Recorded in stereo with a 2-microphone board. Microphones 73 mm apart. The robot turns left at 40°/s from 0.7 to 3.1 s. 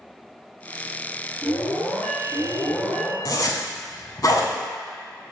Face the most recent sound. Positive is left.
turn(degrees=60)  # may be behind; listen again after turning